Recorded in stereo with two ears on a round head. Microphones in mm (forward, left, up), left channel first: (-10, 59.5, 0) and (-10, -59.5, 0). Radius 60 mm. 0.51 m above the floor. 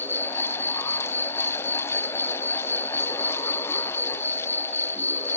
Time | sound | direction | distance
0.0 | an insect | 15° left (ahead or behind) | ?